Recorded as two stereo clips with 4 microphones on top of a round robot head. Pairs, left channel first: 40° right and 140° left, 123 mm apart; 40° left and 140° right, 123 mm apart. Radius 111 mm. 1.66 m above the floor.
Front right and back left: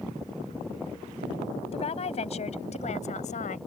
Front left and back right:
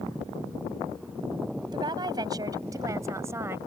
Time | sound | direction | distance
1.7 | a woman speaking | 80° right | ?